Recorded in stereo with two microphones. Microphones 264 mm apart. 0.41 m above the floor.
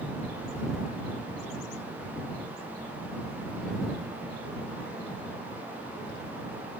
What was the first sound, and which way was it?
Only background noise.